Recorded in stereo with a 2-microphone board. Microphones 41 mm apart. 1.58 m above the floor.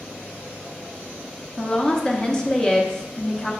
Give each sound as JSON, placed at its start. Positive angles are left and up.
{"t": 1.6, "sound": "a woman speaking", "side_deg": 15, "distance_m": 0.6}